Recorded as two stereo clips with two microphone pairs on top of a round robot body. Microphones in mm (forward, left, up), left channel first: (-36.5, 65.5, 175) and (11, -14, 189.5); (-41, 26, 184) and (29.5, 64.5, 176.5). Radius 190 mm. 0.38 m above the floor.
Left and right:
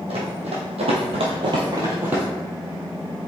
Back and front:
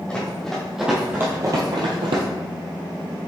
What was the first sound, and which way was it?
Running footsteps, 75° right.